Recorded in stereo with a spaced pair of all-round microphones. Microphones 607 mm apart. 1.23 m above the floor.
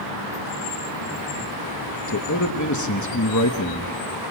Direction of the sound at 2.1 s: 30° left (ahead or behind).